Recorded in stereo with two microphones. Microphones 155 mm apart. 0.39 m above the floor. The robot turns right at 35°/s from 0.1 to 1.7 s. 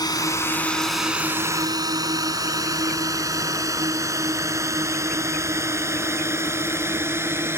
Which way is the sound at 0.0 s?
25° left (ahead or behind).